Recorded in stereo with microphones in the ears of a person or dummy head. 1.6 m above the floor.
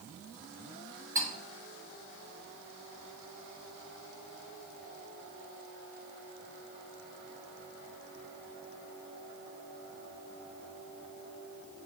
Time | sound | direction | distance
1.1 | cutlery clinking | 15° right (ahead or behind) | 1.8 m